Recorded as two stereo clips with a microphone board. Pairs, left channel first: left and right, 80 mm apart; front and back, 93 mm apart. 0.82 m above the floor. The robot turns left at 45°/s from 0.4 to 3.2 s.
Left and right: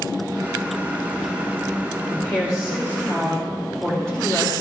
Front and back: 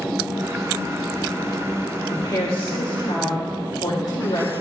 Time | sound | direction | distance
2.1 | a woman speaking | 60° left | 2.5 m